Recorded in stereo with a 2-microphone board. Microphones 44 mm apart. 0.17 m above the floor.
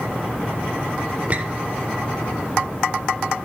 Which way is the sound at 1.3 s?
35° right (ahead or behind).